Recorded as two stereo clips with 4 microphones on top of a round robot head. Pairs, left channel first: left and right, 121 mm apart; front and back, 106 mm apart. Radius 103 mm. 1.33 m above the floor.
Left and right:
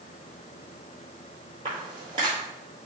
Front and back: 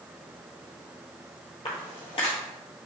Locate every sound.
1.6 s footsteps: 40° right, 1.6 m